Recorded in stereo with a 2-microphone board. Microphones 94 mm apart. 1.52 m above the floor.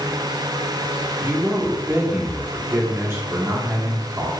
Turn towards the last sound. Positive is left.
turn(degrees=-30)  # may be behind; listen again after turning